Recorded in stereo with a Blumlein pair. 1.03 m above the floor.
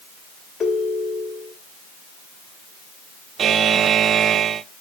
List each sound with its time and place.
0.6 s a ringtone: 15° left, 2 m
3.4 s a buzzer: 25° right, 0.6 m